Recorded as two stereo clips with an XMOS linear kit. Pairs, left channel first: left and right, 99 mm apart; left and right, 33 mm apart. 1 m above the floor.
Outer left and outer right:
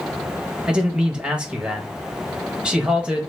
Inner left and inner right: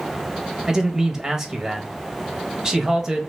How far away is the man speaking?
About 1.2 m.